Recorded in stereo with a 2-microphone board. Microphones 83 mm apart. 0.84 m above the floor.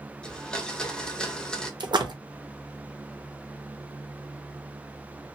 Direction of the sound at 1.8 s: 60° right (ahead or behind).